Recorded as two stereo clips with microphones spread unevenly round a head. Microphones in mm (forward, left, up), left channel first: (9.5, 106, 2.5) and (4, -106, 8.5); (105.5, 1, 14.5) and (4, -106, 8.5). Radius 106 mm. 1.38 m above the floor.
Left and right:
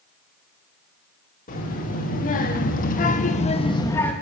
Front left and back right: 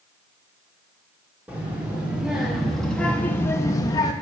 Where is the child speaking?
140° left, 1.9 m; by 4.1 s 5° left, 0.7 m.